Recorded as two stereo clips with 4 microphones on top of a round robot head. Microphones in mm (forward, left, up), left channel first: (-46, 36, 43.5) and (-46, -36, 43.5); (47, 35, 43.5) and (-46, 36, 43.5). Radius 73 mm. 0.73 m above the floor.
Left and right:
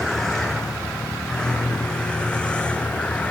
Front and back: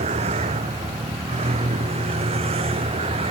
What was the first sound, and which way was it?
A vehicle, 175° left.